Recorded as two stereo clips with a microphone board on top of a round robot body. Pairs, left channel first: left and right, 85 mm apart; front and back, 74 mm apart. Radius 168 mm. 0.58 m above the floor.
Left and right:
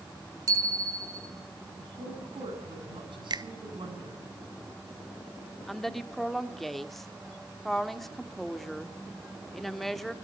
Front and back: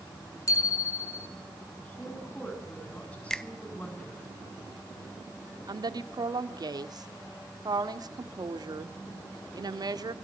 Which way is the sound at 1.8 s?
70° right.